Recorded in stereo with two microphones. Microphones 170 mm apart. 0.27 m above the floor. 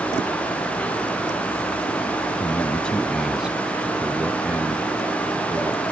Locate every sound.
2.4 s a man speaking: 15° left (ahead or behind); by 5.8 s 15° right (ahead or behind)